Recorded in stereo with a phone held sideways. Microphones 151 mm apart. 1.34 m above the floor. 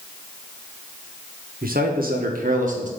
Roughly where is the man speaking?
Right.